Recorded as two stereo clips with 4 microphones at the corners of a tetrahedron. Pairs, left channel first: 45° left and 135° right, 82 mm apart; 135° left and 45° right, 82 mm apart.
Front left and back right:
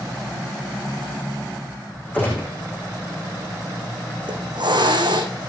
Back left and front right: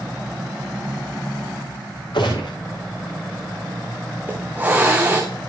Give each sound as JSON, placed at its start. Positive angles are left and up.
{"t": 2.1, "sound": "a gunshot", "azimuth_deg": 115, "distance_m": 9.5}
{"t": 4.2, "sound": "a hiss", "azimuth_deg": -115, "distance_m": 3.0}